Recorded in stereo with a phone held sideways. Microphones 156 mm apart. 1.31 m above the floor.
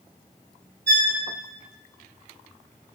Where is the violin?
85° right, 5 m.